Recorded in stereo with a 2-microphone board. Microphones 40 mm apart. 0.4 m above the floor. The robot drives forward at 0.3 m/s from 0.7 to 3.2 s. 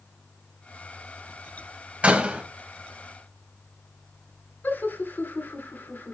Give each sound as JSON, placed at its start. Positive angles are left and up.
{"t": 2.0, "sound": "a door slam", "side_deg": -30, "distance_m": 1.6}
{"t": 4.6, "sound": "laughter", "side_deg": 60, "distance_m": 3.5}